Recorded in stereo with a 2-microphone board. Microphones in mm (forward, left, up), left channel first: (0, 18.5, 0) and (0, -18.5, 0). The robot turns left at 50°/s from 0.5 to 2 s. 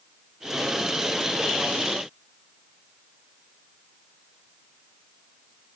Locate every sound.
Only background noise.